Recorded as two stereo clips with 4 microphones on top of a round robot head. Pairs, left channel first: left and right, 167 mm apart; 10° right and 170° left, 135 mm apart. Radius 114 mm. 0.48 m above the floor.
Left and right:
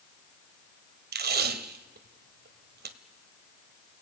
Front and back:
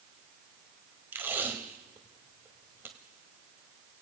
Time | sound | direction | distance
1.1 | tape being pulled | 110° right | 1.4 m